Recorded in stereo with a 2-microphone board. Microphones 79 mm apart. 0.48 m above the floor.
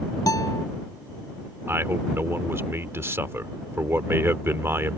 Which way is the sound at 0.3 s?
50° left (ahead or behind).